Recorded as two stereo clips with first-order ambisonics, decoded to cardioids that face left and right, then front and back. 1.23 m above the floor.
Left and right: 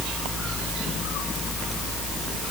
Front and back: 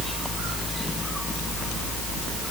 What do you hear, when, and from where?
Only background noise.